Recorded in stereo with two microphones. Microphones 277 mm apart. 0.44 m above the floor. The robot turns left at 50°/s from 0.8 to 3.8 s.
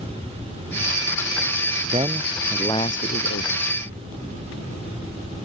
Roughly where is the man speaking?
Behind right.